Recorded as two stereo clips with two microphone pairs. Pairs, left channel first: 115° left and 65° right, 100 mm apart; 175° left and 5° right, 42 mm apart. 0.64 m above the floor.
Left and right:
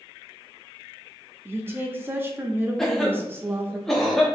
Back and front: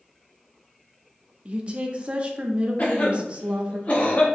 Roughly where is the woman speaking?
Ahead.